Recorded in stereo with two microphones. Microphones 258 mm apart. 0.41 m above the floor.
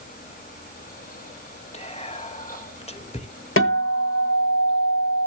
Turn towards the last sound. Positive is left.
turn(degrees=55)  # may be behind; listen again after turning